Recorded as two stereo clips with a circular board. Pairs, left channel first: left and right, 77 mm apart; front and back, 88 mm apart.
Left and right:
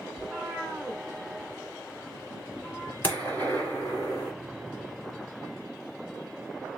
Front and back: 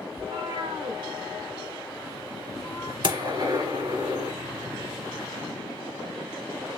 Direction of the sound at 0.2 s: 165° right.